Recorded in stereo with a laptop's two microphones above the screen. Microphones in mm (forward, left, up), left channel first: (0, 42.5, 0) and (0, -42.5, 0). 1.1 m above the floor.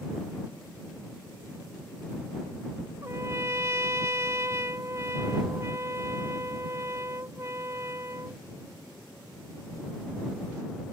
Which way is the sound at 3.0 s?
35° right (ahead or behind).